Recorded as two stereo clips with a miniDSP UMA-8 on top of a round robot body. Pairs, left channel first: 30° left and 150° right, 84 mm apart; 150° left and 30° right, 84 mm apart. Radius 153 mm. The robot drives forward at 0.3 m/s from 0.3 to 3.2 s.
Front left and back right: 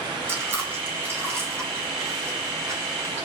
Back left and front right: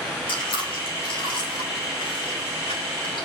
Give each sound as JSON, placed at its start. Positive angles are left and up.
{"t": 0.3, "sound": "chewing", "azimuth_deg": 150, "distance_m": 5.0}